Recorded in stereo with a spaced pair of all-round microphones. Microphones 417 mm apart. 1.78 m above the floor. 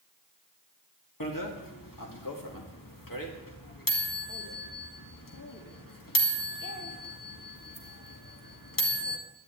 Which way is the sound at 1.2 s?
50° left (ahead or behind).